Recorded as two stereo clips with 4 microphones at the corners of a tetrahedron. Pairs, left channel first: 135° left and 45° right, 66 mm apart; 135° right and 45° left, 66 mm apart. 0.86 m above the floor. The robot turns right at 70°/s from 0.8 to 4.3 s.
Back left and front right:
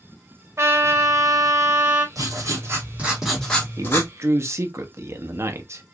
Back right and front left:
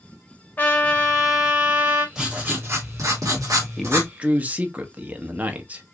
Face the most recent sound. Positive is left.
turn(degrees=-15)